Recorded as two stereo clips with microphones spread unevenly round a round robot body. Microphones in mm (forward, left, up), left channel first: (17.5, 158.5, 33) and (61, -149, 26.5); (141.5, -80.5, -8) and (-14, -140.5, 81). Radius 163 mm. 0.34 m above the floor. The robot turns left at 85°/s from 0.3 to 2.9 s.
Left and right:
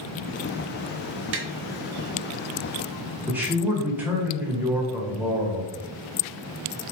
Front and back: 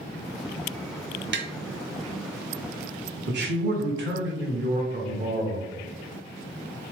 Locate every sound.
1.3 s tapping: 125° right, 0.8 m; by 1.5 s 140° right, 0.8 m
3.3 s a man speaking: 160° right, 1.3 m